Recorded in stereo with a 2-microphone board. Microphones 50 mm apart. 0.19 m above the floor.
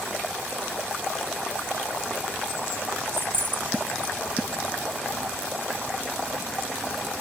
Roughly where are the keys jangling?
Right.